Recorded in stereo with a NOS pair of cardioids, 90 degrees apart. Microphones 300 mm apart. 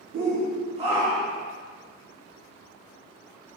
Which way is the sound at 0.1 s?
45° right.